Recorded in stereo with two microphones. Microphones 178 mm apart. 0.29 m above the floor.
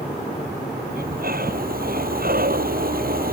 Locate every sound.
0.9 s breathing: 55° right (ahead or behind)